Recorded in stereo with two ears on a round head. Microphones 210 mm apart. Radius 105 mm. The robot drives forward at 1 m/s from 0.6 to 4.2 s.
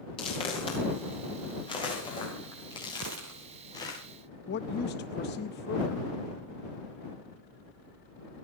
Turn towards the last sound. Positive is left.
turn(degrees=50)  # may be behind; listen again after turning